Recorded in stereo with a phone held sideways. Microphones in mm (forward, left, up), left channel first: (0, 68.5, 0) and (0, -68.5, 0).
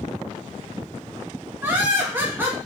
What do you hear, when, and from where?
1.6 s laughter: 15° right (ahead or behind), 0.6 m